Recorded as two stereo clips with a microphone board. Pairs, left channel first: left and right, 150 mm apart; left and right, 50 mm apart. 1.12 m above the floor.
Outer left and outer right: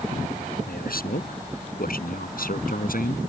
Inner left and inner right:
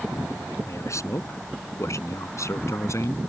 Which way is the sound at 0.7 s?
90° left.